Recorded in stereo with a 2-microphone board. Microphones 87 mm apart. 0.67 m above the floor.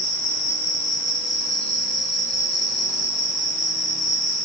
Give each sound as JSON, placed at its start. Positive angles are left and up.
{"t": 0.0, "sound": "an insect", "side_deg": -55, "distance_m": 3.5}